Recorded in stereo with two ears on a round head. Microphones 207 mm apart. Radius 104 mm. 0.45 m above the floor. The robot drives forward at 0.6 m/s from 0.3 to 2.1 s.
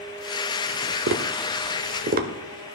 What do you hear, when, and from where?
1.1 s tapping: 55° right (ahead or behind), 0.7 m; by 2.3 s 45° right (ahead or behind), 0.8 m